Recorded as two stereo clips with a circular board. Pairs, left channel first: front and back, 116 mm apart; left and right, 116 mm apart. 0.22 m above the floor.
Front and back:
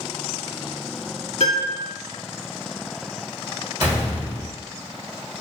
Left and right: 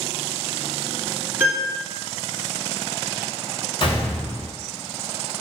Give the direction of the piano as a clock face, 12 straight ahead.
1 o'clock.